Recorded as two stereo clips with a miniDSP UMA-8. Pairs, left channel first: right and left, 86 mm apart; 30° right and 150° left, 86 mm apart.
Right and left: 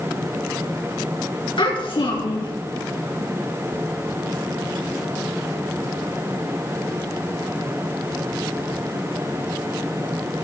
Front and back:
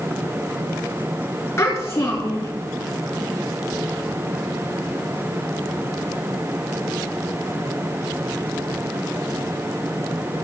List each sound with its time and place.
1.6 s a child speaking: 85° right, 2 m